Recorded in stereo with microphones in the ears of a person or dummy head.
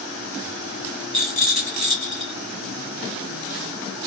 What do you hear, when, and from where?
1.1 s a rattle: centre (ahead or behind), 2 m